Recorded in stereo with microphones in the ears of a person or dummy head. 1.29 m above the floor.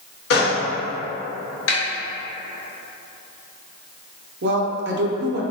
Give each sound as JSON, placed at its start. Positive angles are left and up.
{"t": 0.3, "sound": "a gunshot", "side_deg": 65, "distance_m": 1.1}
{"t": 1.7, "sound": "a snare drum", "side_deg": 75, "distance_m": 1.3}
{"t": 4.4, "sound": "a woman speaking", "side_deg": -55, "distance_m": 0.6}